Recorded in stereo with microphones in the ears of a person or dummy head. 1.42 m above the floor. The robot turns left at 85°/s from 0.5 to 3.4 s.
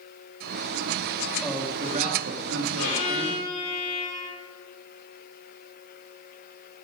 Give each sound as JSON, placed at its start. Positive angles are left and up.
{"t": 1.4, "sound": "a man speaking", "azimuth_deg": 5, "distance_m": 2.5}
{"t": 2.8, "sound": "a violin", "azimuth_deg": 100, "distance_m": 6.5}